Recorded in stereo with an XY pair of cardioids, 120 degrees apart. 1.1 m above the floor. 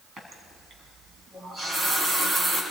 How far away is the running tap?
About 5.5 m.